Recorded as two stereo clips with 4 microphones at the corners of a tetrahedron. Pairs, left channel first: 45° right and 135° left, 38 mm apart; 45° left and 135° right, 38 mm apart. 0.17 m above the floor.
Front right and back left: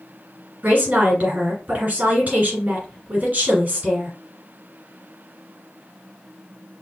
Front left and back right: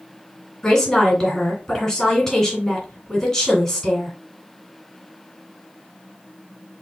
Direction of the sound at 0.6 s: 115° left.